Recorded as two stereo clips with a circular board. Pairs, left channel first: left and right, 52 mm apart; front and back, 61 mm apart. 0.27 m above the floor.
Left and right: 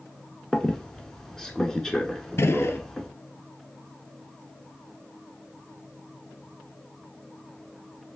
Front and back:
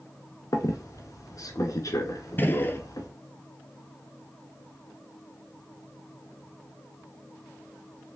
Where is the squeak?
10° left, 0.8 m.